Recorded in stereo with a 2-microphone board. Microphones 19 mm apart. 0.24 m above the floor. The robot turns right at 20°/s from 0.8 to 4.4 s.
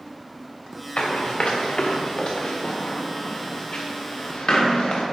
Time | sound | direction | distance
1.0 | running footsteps | 60° left (ahead or behind) | 1.6 m